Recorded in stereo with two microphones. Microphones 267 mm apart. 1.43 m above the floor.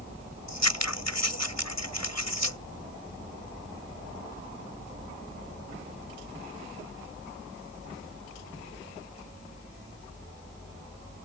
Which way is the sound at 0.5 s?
80° left.